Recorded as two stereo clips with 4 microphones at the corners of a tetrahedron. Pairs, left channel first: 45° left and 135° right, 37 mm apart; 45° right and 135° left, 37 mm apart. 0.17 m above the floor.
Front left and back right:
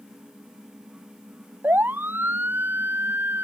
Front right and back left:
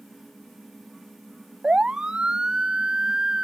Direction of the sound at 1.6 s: 160° right.